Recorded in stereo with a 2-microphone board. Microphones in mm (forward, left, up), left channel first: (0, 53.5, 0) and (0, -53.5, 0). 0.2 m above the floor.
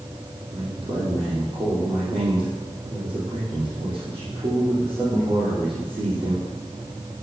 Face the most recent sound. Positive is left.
turn(degrees=-45)  # may be behind; listen again after turning